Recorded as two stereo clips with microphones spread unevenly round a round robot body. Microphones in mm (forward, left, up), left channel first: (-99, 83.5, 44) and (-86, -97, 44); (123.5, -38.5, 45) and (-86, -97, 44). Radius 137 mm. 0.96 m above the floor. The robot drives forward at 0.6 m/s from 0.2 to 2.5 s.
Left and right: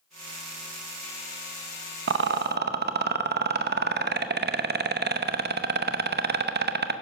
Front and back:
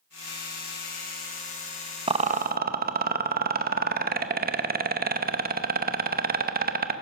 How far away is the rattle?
About 0.8 m.